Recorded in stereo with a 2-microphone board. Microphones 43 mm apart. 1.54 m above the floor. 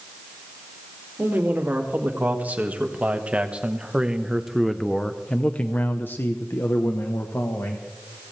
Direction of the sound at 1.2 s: 45° right (ahead or behind).